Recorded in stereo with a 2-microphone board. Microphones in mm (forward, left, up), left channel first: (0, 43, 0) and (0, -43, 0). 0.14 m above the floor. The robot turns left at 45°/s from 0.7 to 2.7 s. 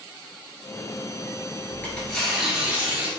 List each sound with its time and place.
1.7 s tearing paper: 30° left, 0.9 m; by 3.1 s 15° right, 0.9 m